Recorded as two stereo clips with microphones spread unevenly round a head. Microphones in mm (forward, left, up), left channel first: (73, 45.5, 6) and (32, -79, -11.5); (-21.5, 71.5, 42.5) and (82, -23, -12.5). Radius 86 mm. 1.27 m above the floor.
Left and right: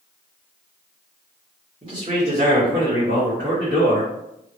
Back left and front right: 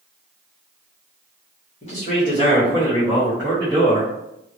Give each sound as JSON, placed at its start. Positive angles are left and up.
{"t": 1.8, "sound": "a man speaking", "azimuth_deg": -170, "distance_m": 1.6}